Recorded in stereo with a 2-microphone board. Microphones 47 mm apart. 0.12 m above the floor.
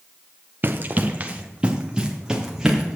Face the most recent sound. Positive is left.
turn(degrees=-10)  # may be behind; listen again after turning